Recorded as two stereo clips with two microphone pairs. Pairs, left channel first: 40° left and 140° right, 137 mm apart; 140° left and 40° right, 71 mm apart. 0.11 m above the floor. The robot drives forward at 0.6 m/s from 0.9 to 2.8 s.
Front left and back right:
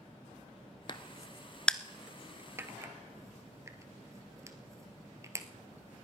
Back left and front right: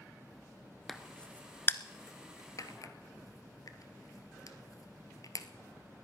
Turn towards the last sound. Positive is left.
turn(degrees=160)